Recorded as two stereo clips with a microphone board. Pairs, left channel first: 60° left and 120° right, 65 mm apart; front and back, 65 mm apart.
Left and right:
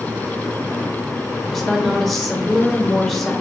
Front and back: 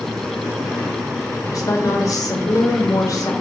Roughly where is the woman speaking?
Ahead right.